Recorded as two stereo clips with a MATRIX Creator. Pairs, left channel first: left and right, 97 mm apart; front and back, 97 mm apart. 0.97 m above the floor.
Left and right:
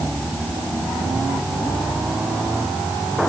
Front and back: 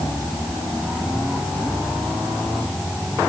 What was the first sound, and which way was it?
Only background noise.